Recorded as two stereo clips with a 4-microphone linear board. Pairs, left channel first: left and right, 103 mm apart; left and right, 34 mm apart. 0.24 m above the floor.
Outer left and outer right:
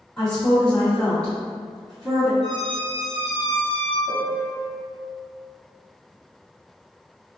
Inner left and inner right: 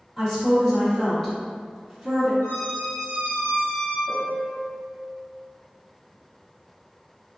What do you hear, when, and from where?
0.2 s a woman speaking: 10° left (ahead or behind), 1.4 m
2.4 s a squeak: 75° left (ahead or behind), 1.7 m
4.1 s a piano: 25° left (ahead or behind), 0.6 m